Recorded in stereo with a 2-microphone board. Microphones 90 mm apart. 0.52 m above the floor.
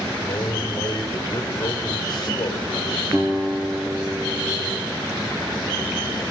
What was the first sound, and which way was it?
A man speaking, 55° left (ahead or behind).